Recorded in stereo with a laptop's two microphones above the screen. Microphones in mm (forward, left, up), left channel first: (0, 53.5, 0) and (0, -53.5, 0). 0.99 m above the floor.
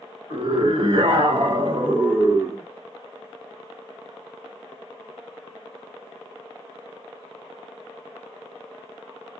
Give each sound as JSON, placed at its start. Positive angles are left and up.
{"t": 0.3, "sound": "a scream", "side_deg": -50, "distance_m": 1.1}